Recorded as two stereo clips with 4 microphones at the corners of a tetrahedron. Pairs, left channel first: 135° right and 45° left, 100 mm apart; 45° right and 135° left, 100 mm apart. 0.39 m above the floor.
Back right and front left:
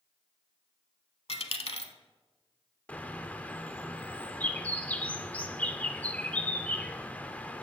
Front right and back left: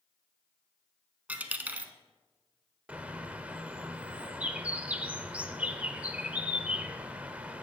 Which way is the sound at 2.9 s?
175° left.